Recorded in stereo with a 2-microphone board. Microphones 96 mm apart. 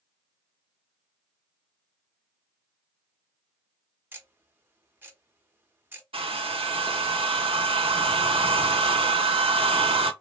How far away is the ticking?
About 0.6 m.